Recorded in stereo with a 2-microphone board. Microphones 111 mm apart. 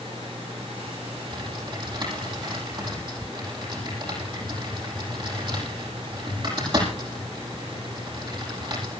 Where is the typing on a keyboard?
45° right (ahead or behind), 6 m.